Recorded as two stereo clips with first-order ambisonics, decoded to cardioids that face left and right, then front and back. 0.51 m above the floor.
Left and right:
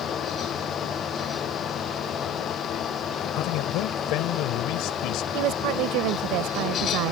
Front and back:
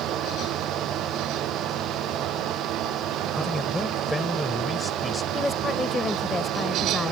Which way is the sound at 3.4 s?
85° left.